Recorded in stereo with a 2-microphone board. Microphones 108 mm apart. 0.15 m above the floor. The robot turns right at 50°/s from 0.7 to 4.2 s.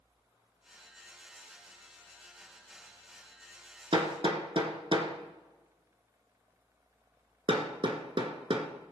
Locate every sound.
3.9 s hammering: 55° right (ahead or behind), 1.7 m